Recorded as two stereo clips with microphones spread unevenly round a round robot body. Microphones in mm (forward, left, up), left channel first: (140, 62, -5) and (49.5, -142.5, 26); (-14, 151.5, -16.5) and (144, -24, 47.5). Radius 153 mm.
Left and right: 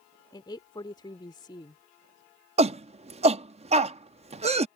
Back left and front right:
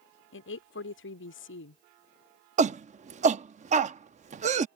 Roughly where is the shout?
Right.